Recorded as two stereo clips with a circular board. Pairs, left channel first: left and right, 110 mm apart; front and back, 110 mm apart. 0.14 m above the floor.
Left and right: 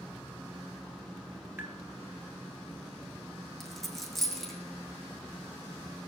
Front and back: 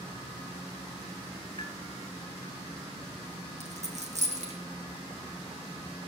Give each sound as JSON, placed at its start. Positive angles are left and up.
{"t": 1.6, "sound": "tapping", "azimuth_deg": -25, "distance_m": 2.5}
{"t": 3.6, "sound": "a dropped coin", "azimuth_deg": 180, "distance_m": 2.5}